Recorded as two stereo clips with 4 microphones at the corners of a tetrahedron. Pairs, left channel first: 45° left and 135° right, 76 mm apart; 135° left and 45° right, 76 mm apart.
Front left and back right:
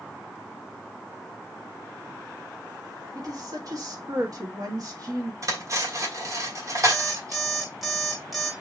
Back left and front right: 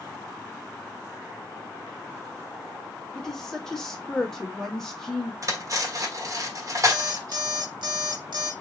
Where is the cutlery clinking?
90° right, 1.2 m.